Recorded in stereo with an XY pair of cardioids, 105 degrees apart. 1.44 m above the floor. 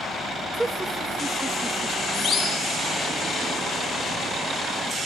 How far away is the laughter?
About 2.5 m.